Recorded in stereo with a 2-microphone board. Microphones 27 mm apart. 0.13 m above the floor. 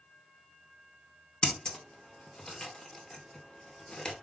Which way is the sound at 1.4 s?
30° left (ahead or behind).